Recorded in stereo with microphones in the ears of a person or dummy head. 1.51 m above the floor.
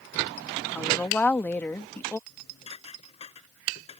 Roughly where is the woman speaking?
Centre.